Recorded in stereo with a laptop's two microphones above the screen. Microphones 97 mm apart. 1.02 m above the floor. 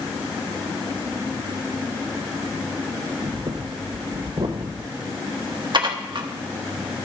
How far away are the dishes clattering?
About 0.9 m.